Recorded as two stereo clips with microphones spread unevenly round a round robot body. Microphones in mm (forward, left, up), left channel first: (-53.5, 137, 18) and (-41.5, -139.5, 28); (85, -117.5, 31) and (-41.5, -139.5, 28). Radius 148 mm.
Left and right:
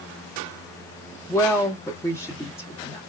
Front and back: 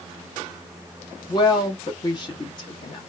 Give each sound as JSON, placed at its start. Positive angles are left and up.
{"t": 1.3, "sound": "a woman speaking", "azimuth_deg": 25, "distance_m": 0.8}